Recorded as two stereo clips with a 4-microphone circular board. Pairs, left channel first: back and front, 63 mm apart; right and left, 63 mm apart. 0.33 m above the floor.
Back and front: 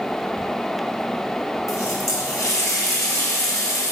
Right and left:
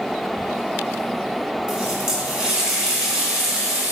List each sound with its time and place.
1.7 s a running tap: 165° left, 2.0 m